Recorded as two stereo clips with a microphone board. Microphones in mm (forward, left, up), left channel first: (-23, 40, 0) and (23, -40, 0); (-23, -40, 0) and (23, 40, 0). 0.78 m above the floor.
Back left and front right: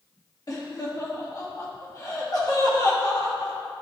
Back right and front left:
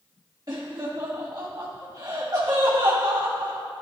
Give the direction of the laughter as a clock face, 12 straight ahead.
9 o'clock.